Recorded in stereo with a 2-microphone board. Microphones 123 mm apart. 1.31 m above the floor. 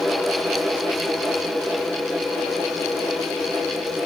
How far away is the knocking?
No knocking in this recording.